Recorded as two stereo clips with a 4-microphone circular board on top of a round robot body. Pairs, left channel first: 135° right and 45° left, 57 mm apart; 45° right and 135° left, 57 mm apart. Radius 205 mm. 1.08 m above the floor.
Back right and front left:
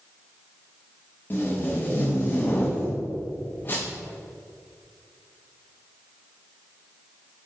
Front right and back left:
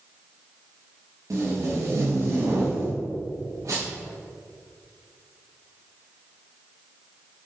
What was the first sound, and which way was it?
Tape being pulled, 170° left.